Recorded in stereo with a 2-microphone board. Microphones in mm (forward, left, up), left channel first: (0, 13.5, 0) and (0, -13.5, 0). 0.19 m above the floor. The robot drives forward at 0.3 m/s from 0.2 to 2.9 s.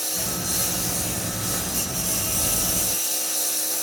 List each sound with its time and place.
0.0 s a lawn mower: centre (ahead or behind); by 3.8 s 5° right (ahead or behind)